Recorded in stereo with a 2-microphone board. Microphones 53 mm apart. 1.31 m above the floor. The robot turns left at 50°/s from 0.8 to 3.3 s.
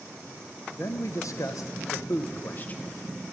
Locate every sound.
0.7 s a man speaking: 125° left, 0.7 m; by 2.8 s 25° left, 0.7 m